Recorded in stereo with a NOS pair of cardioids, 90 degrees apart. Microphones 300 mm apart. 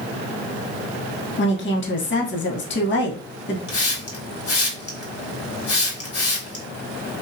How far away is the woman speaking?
About 0.9 m.